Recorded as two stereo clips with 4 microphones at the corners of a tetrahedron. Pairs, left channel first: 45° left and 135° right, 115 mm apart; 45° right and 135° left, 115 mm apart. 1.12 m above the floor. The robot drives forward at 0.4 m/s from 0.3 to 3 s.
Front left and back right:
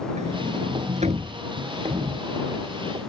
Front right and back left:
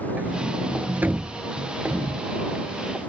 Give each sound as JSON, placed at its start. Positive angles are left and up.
{"t": 0.2, "sound": "a sliding door", "azimuth_deg": -150}